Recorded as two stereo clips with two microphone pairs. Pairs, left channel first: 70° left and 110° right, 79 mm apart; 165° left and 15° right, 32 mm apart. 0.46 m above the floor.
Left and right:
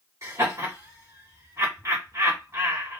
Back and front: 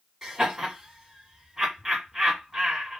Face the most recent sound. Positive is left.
turn(degrees=-90)